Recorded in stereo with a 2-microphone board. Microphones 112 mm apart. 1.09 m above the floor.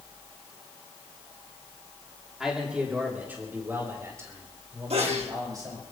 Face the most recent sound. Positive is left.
turn(degrees=-65)  # may be behind; listen again after turning